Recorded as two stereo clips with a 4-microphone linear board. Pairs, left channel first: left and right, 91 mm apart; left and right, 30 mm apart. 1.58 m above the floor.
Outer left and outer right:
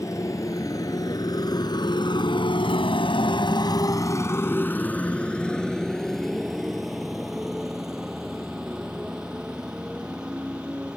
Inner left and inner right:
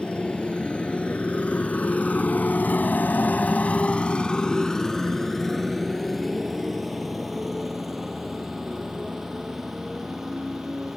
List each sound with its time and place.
0.0 s a motorcycle: 35° left (ahead or behind); by 11.0 s 10° right (ahead or behind)